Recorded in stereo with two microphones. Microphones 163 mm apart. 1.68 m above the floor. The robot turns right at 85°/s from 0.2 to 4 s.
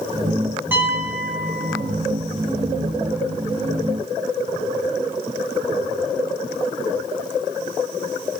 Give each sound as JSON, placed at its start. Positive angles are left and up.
{"t": 0.7, "sound": "a piano", "side_deg": -15, "distance_m": 1.0}